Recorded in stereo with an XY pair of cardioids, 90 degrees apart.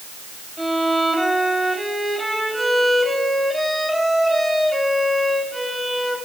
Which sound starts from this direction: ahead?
A violin, at 0.6 s.